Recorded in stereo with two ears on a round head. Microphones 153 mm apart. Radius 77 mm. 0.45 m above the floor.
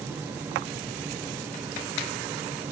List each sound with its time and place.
Only background noise.